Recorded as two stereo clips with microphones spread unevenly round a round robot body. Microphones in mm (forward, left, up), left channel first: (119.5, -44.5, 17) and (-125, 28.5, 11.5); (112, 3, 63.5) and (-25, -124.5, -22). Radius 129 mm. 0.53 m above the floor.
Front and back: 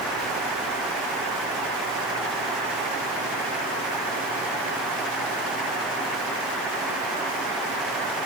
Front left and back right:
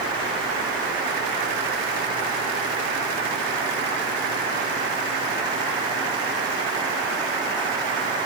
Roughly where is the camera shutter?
No camera shutter in this recording.